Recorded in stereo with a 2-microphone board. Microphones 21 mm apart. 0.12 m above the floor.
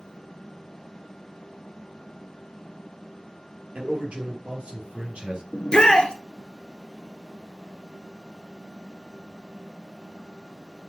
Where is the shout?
50° left (ahead or behind), 1.5 m.